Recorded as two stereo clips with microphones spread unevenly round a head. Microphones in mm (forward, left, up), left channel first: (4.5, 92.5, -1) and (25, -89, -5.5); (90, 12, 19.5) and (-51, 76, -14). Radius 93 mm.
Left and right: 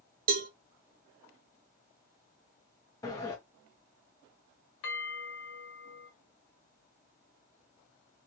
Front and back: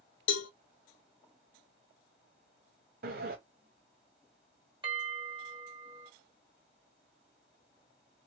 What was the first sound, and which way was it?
A cowbell, 40° right.